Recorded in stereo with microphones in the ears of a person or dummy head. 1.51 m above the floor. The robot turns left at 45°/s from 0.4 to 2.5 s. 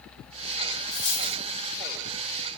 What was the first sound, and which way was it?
A dropped coin, 25° left (ahead or behind).